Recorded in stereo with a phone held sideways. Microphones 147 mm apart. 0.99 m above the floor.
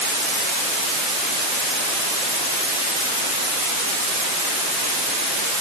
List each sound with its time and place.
Only background noise.